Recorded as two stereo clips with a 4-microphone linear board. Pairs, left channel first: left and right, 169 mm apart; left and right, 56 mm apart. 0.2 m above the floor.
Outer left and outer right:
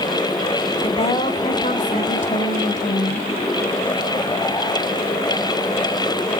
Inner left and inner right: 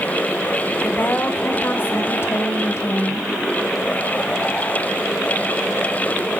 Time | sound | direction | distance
0.8 | a woman speaking | 35° left (ahead or behind) | 1.7 m